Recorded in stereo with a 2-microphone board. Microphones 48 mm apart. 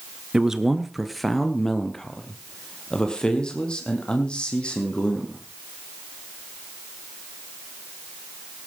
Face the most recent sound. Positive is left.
turn(degrees=20)  # may be behind; listen again after turning